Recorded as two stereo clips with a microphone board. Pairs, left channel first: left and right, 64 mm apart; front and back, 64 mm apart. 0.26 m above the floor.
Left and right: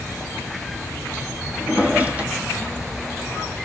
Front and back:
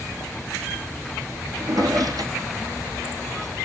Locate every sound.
1.6 s a drawer: 155° right, 2.5 m